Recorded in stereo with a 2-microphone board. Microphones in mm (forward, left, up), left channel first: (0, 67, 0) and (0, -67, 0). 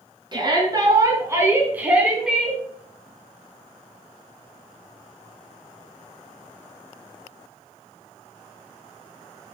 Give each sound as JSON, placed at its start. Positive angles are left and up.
{"t": 0.3, "sound": "a shout", "side_deg": -35, "distance_m": 3.5}